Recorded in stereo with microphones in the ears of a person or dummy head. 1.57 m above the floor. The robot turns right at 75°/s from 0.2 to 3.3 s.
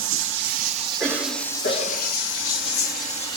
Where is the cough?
5° right, 1.1 m; by 2.1 s 80° left, 1.1 m.